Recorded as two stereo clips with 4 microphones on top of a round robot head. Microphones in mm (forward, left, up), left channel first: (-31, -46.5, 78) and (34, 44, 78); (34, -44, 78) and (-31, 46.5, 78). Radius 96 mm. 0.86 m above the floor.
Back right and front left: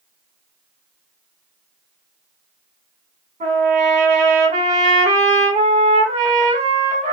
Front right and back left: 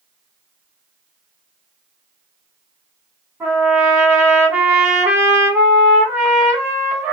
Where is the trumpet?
55° left, 1.7 m.